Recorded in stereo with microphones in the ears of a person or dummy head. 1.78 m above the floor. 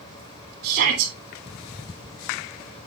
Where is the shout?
65° right (ahead or behind), 2.5 m.